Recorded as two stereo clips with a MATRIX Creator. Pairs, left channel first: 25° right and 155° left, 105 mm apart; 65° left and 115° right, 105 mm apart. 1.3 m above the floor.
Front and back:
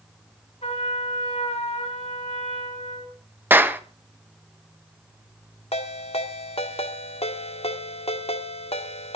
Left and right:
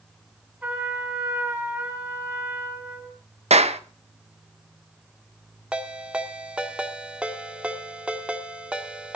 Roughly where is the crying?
I don't hear crying.